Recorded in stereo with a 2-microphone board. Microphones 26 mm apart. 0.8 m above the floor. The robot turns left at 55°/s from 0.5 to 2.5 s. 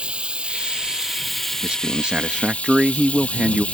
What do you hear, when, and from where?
0.0 s running water: 130° right; by 3.8 s 120° left
1.6 s a man speaking: 85° right; by 3.6 s 135° right